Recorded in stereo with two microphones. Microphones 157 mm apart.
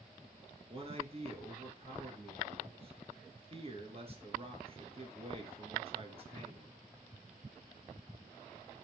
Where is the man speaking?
40° right (ahead or behind), 1.6 m.